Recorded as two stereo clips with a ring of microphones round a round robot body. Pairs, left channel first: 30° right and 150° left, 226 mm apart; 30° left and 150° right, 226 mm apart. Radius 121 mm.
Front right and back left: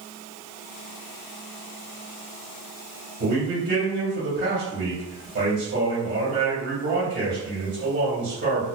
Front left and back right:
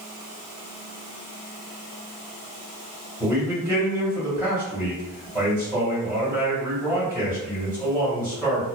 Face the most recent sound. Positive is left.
turn(degrees=135)